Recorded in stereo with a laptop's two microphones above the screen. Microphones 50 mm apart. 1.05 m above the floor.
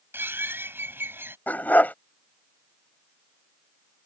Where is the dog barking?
40° left (ahead or behind).